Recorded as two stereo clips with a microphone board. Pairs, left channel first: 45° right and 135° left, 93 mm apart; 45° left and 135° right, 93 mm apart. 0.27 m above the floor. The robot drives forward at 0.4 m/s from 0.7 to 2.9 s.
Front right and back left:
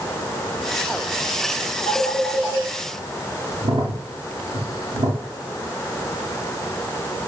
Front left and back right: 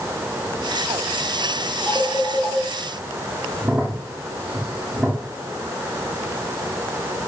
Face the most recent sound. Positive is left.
turn(degrees=145)